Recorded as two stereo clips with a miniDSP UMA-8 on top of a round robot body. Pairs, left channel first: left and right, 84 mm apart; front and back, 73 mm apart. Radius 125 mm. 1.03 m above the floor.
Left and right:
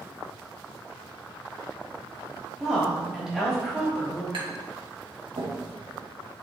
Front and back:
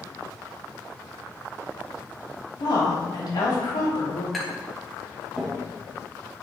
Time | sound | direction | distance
2.6 | a woman speaking | 5° right | 3.5 m
4.3 | tapping | 90° right | 2.5 m